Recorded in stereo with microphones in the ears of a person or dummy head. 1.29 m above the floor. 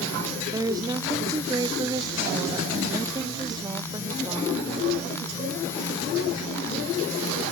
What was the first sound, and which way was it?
A woman speaking, 15° right (ahead or behind).